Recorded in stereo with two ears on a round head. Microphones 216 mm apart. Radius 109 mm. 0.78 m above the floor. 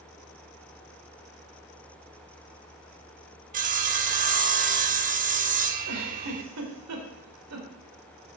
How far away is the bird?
No bird in this recording.